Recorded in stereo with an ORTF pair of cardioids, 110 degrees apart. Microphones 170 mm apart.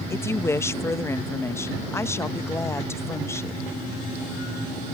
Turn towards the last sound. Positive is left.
turn(degrees=15)